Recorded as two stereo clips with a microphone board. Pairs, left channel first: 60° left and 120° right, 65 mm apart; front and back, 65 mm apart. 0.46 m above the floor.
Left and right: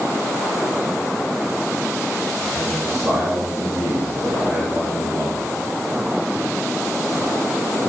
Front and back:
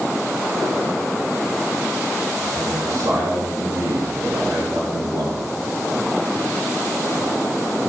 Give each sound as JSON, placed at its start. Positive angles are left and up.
{"t": 2.4, "sound": "a man speaking", "azimuth_deg": 160, "distance_m": 5.0}